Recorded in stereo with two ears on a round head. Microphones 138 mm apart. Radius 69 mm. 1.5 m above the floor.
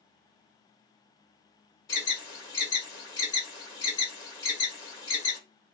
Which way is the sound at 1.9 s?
25° left (ahead or behind).